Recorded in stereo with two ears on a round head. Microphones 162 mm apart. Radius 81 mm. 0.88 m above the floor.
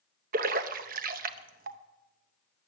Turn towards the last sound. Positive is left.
turn(degrees=-50)  # may be behind; listen again after turning